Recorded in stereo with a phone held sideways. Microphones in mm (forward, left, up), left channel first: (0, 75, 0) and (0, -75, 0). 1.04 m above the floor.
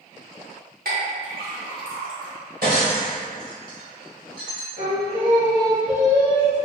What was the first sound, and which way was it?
A clink, 85° right.